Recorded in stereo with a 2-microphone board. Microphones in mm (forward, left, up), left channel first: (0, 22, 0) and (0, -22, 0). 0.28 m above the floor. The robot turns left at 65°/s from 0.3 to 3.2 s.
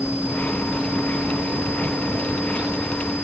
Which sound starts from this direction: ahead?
A vehicle, at 0.0 s.